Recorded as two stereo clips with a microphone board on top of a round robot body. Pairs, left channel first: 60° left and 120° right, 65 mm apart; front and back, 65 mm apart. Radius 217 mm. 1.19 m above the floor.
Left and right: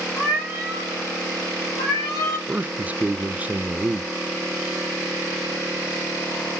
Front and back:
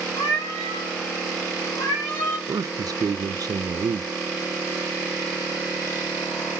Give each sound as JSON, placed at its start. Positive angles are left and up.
{"t": 0.2, "sound": "a cat meowing", "azimuth_deg": -20, "distance_m": 1.4}
{"t": 2.5, "sound": "a man speaking", "azimuth_deg": 175, "distance_m": 0.5}